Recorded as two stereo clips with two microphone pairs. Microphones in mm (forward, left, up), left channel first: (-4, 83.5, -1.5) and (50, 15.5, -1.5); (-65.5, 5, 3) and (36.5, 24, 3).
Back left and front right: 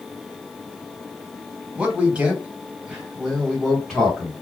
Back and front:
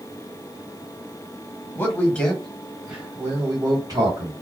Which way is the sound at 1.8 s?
120° right.